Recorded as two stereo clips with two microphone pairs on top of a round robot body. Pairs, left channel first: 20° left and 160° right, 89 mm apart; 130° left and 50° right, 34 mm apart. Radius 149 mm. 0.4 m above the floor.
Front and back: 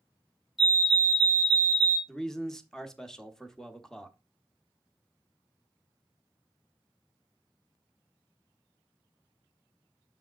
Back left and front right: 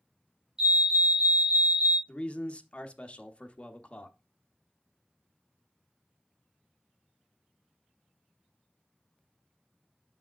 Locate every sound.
0.6 s a fire alarm: 70° right, 2 m
2.1 s a man speaking: 95° left, 1.0 m